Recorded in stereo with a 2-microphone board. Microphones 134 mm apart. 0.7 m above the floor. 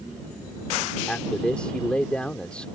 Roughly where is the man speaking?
Centre.